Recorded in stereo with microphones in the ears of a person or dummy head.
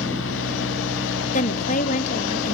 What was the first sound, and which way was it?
A fan, 65° left (ahead or behind).